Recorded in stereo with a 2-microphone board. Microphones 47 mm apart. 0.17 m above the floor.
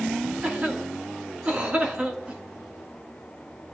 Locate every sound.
0.4 s a cough: 30° right (ahead or behind), 2 m